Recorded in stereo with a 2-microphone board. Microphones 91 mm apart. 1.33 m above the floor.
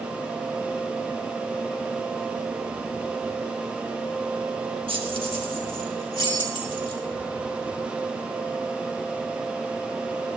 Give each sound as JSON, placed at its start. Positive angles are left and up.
{"t": 4.9, "sound": "keys jangling", "side_deg": -70, "distance_m": 1.3}